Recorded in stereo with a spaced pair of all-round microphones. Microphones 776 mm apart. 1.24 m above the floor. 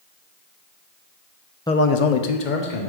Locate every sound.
1.7 s a man speaking: 5° left (ahead or behind), 0.6 m; by 2.9 s 70° left (ahead or behind), 1.4 m